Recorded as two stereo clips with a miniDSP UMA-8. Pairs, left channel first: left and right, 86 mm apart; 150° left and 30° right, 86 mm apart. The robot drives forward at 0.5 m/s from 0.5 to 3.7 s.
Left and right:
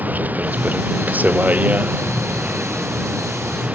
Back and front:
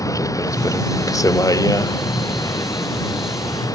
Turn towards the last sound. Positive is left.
turn(degrees=-165)